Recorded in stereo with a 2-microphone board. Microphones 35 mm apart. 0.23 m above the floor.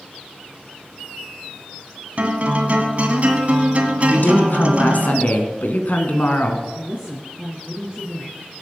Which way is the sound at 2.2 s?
40° right (ahead or behind).